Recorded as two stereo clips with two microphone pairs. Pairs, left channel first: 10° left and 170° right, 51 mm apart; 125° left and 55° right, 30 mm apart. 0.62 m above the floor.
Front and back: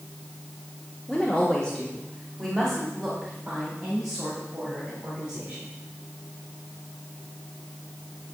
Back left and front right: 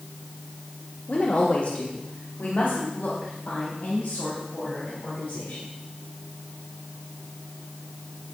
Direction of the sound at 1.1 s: 100° left.